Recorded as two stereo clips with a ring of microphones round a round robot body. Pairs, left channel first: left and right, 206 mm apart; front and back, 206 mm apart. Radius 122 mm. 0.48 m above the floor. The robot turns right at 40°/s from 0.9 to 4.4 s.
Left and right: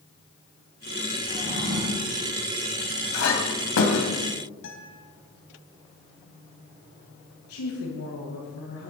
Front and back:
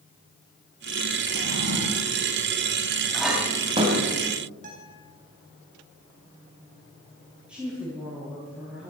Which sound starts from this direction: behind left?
A guitar, at 4.6 s.